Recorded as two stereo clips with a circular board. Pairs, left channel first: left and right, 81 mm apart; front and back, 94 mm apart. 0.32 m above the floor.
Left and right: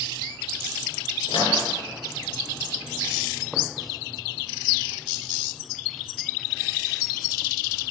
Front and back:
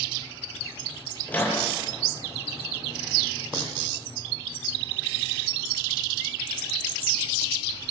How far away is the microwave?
About 7.5 m.